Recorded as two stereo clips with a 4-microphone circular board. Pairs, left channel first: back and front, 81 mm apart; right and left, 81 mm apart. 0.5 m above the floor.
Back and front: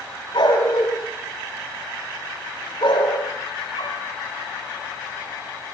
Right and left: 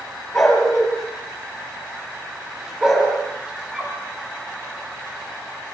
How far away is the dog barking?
About 6.5 m.